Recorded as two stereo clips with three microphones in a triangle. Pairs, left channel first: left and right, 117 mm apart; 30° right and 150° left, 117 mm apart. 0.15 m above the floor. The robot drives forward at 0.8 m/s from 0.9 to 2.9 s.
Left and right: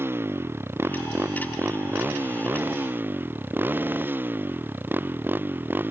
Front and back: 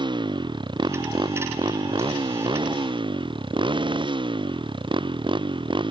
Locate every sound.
0.0 s a motorcycle: 160° right; by 5.9 s 165° right